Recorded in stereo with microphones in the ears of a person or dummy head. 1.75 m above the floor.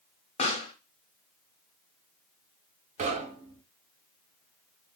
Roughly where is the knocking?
Right.